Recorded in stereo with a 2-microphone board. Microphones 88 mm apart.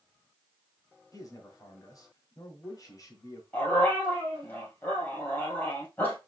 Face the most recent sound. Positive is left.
turn(degrees=20)  # may be behind; listen again after turning